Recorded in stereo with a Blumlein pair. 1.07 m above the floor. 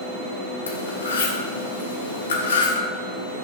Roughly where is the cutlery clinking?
Ahead left.